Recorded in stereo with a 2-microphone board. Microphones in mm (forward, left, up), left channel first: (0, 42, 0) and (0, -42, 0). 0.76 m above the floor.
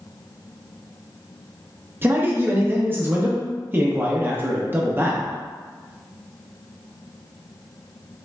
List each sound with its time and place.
2.0 s a man speaking: 25° right (ahead or behind), 0.6 m